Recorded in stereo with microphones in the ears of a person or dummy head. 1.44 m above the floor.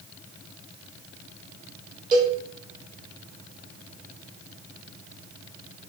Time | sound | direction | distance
2.1 | a cowbell | 25° right (ahead or behind) | 1.4 m